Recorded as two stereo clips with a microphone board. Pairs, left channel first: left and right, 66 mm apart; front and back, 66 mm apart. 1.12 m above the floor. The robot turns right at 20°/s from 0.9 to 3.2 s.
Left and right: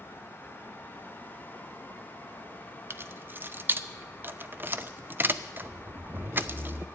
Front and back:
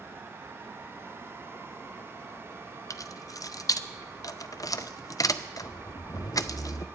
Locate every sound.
2.9 s keys jangling: 35° right, 0.5 m; by 6.8 s 30° right, 0.5 m